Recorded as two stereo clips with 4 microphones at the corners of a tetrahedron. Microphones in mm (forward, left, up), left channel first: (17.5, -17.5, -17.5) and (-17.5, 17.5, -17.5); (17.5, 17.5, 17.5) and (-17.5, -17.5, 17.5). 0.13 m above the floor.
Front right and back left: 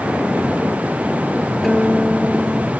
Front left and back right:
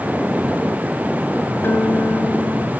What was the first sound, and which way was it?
A guitar, 40° left.